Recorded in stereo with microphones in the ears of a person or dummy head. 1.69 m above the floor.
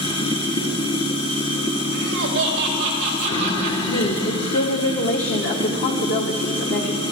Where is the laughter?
65° right (ahead or behind), 3 m.